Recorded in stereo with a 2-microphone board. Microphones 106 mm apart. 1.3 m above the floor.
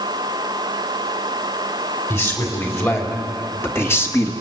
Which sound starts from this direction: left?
A man speaking, at 2.1 s.